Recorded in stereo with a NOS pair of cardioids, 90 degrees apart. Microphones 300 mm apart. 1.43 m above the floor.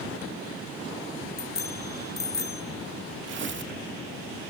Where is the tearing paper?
40° right, 1.9 m.